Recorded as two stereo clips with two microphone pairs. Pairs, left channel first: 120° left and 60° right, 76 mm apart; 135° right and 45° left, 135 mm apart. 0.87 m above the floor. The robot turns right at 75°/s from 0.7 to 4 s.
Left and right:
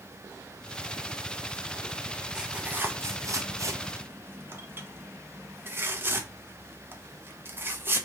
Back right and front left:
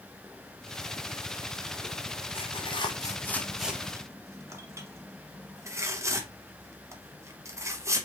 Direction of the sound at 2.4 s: 140° right.